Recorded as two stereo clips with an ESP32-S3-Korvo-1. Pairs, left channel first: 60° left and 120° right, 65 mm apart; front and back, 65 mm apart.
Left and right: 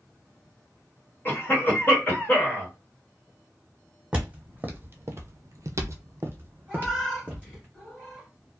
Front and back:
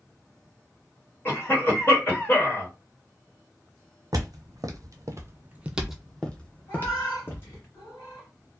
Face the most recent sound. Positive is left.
turn(degrees=-25)